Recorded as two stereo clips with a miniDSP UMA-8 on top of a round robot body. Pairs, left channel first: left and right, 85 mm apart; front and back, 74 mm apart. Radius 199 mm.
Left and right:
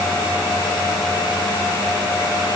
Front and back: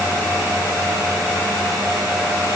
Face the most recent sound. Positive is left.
No sound to turn to.